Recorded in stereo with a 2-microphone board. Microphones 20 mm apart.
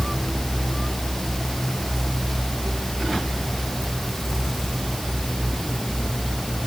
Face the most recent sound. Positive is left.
No sound to turn to.